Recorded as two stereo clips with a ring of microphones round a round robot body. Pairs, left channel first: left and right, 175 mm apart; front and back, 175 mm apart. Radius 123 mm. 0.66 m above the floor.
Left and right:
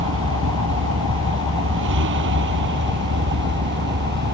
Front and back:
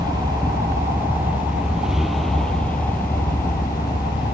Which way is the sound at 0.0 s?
105° right.